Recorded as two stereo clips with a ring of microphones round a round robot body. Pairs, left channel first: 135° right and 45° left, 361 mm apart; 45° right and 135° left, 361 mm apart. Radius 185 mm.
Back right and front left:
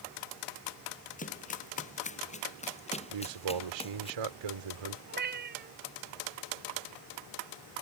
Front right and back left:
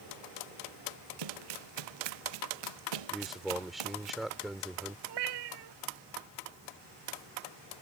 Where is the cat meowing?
110° left.